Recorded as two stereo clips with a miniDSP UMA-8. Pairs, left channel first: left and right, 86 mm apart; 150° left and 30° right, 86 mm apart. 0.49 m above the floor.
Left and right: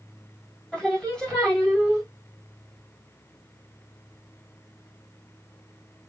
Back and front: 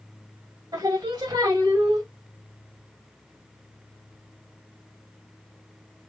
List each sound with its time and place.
0.7 s singing: 5° left, 1.8 m